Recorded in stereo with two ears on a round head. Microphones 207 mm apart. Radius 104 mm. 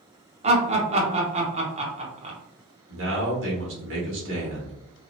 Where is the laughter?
25° right (ahead or behind), 0.7 m.